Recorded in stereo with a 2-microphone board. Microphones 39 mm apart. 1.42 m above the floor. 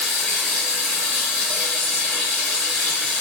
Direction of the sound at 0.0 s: 5° left (ahead or behind).